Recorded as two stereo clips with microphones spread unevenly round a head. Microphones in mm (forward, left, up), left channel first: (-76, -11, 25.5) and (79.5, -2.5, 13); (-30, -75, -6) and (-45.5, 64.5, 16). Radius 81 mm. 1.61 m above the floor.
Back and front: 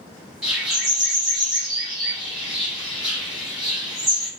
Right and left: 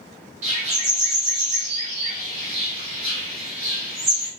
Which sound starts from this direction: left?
A bird, at 0.4 s.